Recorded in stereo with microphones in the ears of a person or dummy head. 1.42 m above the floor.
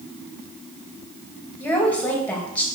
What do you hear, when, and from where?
1.6 s a woman speaking: 10° left (ahead or behind), 2.5 m